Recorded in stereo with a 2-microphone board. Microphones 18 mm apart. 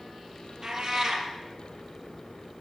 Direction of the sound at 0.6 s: 45° right (ahead or behind).